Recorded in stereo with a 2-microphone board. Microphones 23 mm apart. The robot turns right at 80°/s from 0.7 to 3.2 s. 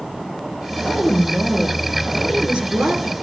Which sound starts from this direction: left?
A woman speaking, at 0.8 s.